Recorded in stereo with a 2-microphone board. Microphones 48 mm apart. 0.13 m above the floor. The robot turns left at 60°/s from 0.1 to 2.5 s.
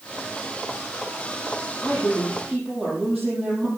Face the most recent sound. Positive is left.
turn(degrees=-5)